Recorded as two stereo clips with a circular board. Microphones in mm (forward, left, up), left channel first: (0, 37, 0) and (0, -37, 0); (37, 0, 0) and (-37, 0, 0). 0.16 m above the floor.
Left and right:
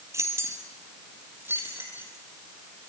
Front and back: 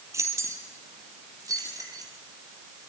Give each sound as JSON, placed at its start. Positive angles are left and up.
{"t": 0.1, "sound": "keys jangling", "azimuth_deg": -135, "distance_m": 3.5}